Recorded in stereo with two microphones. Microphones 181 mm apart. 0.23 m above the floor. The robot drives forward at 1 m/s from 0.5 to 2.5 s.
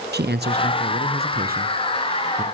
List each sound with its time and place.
0.1 s a man speaking: 65° right (ahead or behind), 2.5 m; by 2.4 s 45° right (ahead or behind), 3.5 m